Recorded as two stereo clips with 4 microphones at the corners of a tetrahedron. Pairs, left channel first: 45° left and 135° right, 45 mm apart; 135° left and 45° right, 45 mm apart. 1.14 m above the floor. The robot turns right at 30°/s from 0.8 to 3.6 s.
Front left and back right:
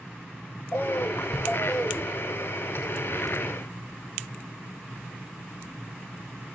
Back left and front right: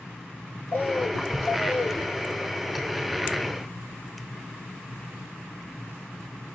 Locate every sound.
0.7 s a bird: 85° left, 1.2 m; by 2.1 s 125° left, 1.2 m